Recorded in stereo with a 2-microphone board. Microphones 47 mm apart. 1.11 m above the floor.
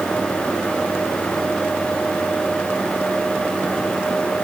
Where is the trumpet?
No trumpet in this recording.